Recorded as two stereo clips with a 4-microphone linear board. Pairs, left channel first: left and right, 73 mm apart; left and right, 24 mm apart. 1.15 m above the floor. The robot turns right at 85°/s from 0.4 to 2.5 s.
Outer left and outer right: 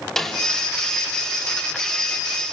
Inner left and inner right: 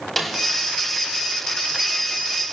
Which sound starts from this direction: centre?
A snare drum, at 0.2 s.